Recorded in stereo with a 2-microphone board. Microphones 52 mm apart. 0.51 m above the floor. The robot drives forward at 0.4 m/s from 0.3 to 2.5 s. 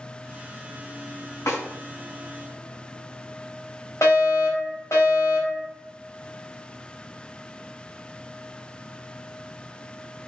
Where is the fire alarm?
65° left (ahead or behind), 4.5 m.